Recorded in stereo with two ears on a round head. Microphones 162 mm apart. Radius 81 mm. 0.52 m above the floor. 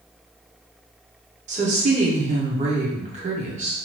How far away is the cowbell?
No cowbell in this recording.